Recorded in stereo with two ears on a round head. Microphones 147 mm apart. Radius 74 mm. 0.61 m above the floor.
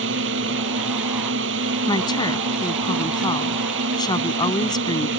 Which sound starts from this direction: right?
A drone, at 0.0 s.